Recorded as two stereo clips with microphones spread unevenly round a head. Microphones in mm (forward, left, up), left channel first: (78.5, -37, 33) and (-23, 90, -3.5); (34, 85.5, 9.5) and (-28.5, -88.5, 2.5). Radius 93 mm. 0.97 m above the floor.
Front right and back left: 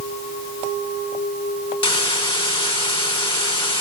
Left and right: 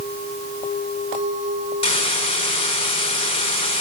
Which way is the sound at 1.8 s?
10° left.